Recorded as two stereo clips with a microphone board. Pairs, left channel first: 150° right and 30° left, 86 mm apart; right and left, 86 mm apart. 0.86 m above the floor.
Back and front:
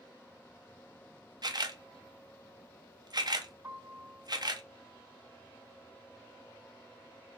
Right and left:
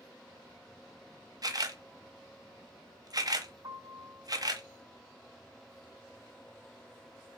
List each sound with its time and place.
1.4 s a camera shutter: 55° left, 0.6 m
3.6 s a piano: 90° left, 2.5 m